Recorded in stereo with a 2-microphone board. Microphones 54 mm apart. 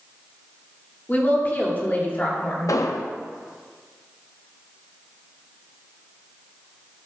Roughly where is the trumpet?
I don't hear a trumpet.